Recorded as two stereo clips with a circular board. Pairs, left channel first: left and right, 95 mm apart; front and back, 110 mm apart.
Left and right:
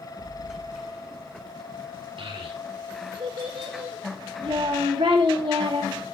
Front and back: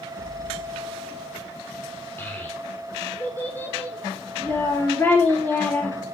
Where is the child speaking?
70° right, 4 m.